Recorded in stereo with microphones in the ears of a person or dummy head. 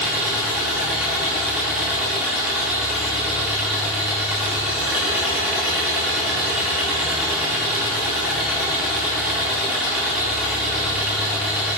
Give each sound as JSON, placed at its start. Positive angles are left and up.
{"t": 0.0, "sound": "an engine running", "side_deg": 0, "distance_m": 1.1}